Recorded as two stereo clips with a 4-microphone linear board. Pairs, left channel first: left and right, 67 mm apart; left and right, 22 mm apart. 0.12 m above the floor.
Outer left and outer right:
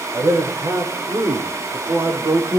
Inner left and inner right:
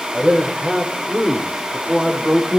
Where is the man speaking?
65° right (ahead or behind), 7 m; by 2.6 s 75° right (ahead or behind), 6.5 m.